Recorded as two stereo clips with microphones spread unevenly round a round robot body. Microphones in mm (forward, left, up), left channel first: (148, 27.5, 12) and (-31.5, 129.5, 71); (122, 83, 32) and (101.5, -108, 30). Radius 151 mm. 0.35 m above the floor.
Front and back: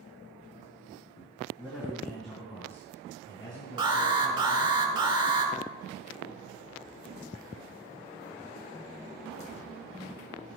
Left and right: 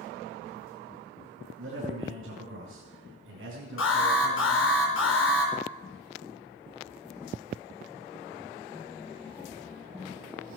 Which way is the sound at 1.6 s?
120° right.